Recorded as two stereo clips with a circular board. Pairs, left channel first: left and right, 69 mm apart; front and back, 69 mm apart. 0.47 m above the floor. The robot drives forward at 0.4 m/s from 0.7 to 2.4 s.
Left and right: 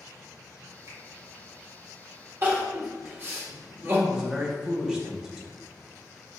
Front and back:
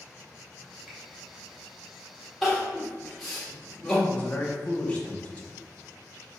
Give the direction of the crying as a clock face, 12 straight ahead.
3 o'clock.